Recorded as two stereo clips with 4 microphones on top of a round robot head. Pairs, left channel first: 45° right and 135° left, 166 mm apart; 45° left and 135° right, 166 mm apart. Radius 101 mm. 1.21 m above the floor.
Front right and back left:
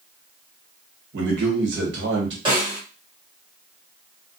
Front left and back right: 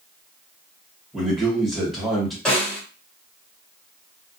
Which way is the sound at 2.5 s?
125° left.